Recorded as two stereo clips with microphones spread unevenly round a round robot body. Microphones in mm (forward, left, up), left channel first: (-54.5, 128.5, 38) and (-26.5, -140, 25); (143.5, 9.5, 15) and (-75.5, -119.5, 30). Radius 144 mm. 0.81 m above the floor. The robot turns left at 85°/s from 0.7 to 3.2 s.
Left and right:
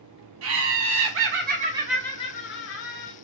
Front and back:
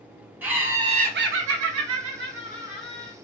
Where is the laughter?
65° right, 0.6 m; by 3.1 s 90° left, 0.6 m.